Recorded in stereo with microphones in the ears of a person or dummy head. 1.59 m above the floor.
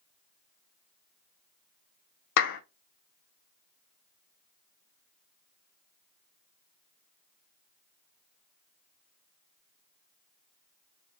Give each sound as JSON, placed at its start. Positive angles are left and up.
{"t": 2.4, "sound": "a clap", "side_deg": 65, "distance_m": 0.8}